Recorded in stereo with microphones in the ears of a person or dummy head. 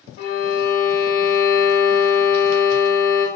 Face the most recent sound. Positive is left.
turn(degrees=45)  # may be behind; listen again after turning